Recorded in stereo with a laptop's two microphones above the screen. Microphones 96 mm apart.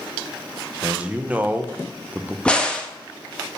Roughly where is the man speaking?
Centre.